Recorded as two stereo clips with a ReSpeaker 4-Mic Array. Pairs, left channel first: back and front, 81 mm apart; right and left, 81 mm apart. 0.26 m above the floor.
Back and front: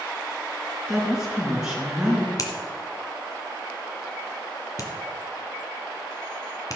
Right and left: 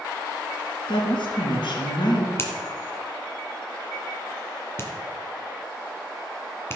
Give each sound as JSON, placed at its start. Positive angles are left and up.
{"t": 0.9, "sound": "a woman speaking", "azimuth_deg": -80, "distance_m": 4.0}
{"t": 2.4, "sound": "a finger snap", "azimuth_deg": -145, "distance_m": 1.8}